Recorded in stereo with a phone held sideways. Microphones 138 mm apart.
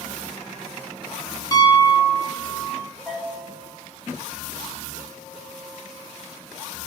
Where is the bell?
5° left (ahead or behind), 2.5 m.